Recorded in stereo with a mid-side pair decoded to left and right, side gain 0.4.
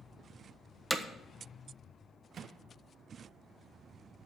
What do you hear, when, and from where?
0.9 s hammering: 5° right, 1.2 m
2.3 s a microwave: 60° right, 1.3 m